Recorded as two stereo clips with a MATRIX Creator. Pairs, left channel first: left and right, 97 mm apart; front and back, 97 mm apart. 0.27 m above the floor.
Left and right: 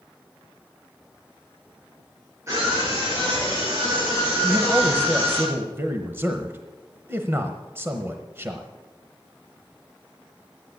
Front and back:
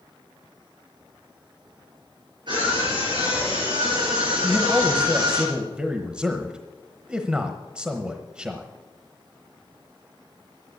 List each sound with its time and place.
2.5 s a scream: 150° right, 5.5 m
4.4 s a man speaking: 115° right, 1.0 m